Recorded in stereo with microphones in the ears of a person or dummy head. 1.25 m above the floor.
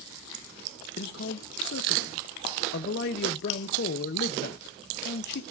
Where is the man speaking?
60° left (ahead or behind), 0.6 m.